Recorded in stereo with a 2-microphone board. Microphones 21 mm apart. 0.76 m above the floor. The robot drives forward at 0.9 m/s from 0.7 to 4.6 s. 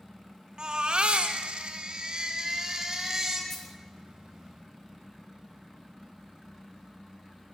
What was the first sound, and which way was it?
A baby crying, 55° right (ahead or behind).